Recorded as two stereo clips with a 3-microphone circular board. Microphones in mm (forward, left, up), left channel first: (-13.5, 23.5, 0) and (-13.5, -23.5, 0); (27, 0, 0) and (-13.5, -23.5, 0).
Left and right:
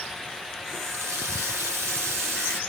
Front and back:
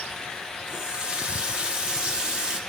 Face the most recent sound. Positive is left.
turn(degrees=-80)